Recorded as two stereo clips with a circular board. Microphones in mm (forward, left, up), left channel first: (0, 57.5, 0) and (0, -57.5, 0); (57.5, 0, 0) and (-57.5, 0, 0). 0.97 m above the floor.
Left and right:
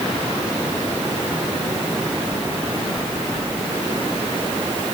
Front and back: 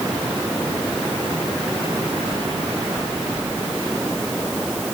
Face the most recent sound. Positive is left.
No sound to turn to.